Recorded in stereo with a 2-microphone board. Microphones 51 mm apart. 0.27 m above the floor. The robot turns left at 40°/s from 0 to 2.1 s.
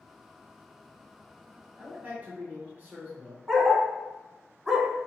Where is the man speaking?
25° right (ahead or behind), 1.5 m; by 3.4 s 30° right (ahead or behind), 1.5 m.